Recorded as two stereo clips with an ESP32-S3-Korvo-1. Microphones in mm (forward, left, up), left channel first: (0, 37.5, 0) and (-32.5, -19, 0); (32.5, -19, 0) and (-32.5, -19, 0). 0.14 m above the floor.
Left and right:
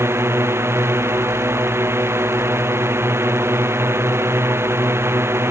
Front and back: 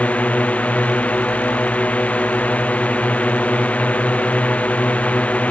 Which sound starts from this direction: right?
A drone, at 0.0 s.